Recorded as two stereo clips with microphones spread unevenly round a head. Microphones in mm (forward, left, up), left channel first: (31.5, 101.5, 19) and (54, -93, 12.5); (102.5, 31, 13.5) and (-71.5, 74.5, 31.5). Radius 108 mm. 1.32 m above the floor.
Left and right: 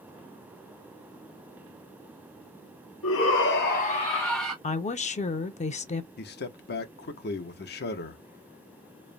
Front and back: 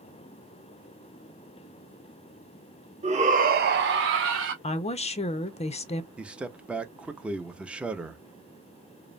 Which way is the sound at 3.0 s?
110° left.